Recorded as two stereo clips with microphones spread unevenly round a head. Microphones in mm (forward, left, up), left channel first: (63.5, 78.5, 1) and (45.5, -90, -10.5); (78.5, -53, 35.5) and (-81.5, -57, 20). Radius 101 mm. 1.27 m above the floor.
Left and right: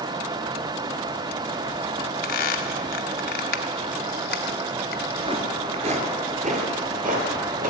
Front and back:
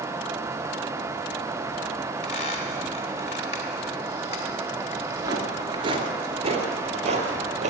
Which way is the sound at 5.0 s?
110° right.